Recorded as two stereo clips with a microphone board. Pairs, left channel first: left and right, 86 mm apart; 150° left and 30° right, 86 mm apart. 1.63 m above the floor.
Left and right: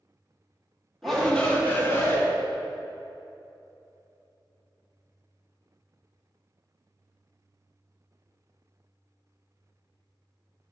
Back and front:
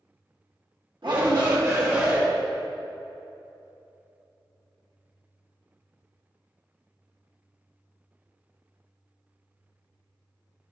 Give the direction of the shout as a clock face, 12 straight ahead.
12 o'clock.